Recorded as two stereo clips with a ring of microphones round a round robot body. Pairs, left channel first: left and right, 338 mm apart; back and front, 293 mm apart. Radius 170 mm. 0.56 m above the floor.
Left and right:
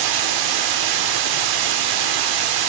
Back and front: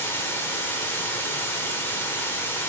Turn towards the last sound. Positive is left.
turn(degrees=-95)